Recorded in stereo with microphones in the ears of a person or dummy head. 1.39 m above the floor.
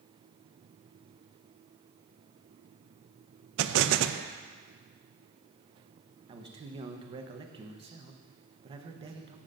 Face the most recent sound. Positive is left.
turn(degrees=-30)  # may be behind; listen again after turning